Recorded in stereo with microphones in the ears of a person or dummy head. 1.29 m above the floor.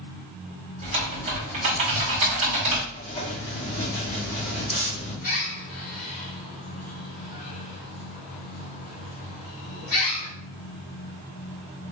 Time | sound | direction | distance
0.8 | typing on a keyboard | 35° right (ahead or behind) | 1.4 m
2.9 | writing | 25° left (ahead or behind) | 1.8 m
5.2 | a bird | 45° left (ahead or behind) | 1.3 m